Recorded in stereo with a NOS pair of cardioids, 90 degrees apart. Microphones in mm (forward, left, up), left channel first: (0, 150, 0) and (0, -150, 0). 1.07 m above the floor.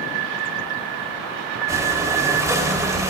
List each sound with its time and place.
1.7 s breathing: 10° right, 3 m